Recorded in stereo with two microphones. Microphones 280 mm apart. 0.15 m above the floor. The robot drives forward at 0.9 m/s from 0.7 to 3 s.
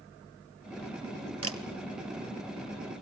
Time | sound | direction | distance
1.4 | a camera shutter | 55° right (ahead or behind) | 1.5 m